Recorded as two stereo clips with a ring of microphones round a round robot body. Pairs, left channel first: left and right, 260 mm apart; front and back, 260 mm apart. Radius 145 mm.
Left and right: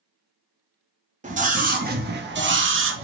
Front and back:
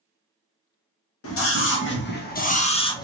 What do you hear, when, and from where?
1.2 s a scream: 30° right, 1.5 m; by 3.0 s 75° right, 1.1 m